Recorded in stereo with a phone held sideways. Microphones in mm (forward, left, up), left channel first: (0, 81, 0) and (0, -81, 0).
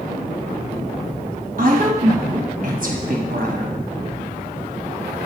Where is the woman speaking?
60° right (ahead or behind), 0.9 m.